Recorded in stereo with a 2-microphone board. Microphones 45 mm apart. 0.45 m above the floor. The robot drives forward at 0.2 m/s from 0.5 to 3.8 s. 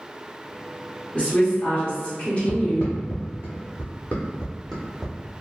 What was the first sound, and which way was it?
A woman speaking, 30° left (ahead or behind).